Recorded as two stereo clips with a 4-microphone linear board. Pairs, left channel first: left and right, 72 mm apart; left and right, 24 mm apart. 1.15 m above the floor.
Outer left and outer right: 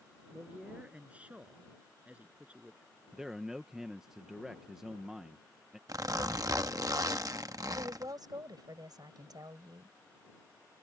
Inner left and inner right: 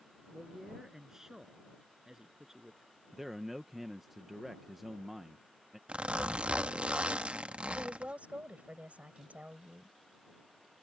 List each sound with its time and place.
0.3 s a man speaking: 20° right (ahead or behind)
3.1 s a man speaking: 10° right (ahead or behind)
5.9 s a zipper: 55° right (ahead or behind)
7.7 s a woman speaking: 65° right (ahead or behind)